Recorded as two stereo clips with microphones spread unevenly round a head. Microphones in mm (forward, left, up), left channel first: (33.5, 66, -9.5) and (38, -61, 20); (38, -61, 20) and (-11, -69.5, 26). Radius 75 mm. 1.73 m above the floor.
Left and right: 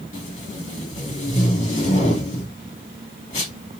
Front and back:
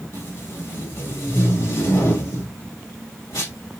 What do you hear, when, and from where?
0.1 s tape being pulled: 50° left, 2.5 m